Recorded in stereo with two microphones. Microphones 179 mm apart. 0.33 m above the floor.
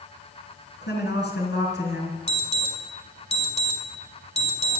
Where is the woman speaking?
70° left (ahead or behind), 4 m; by 2.2 s 75° left (ahead or behind), 4.5 m.